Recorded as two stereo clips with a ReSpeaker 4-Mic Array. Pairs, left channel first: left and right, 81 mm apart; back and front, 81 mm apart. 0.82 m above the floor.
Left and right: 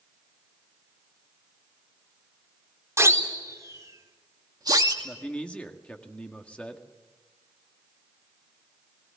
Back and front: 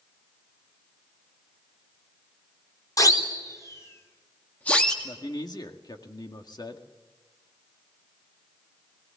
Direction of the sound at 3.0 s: 145° right.